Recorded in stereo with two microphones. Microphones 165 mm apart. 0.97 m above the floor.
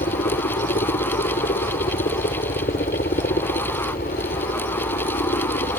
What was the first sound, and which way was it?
A helicopter, 70° left (ahead or behind).